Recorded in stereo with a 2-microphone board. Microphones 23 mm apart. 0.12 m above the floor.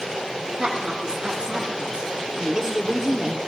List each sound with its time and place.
0.6 s a woman speaking: 35° right (ahead or behind), 3 m; by 3.4 s 20° right (ahead or behind), 1.9 m